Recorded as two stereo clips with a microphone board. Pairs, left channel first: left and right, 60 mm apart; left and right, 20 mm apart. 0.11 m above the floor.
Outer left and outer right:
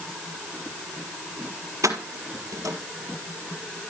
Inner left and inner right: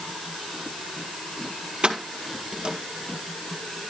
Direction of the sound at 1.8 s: 60° right (ahead or behind).